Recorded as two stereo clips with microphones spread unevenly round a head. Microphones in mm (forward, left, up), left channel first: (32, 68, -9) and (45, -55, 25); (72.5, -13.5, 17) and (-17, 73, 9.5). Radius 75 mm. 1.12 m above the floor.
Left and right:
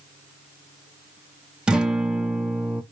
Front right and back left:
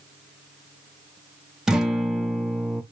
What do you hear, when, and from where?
1.7 s a guitar: 135° right, 0.6 m